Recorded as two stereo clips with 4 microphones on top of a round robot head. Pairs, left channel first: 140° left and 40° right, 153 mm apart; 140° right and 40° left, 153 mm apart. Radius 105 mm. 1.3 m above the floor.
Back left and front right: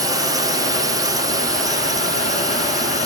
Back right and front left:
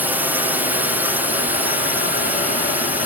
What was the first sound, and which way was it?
A drone, 20° right.